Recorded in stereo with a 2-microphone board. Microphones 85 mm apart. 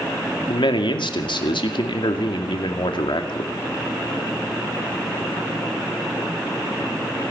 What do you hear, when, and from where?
0.5 s a man speaking: 70° left (ahead or behind), 2 m